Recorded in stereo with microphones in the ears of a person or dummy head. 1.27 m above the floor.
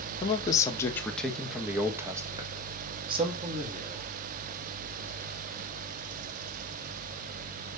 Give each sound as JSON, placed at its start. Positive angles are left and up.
{"t": 0.2, "sound": "a man speaking", "side_deg": 30, "distance_m": 1.8}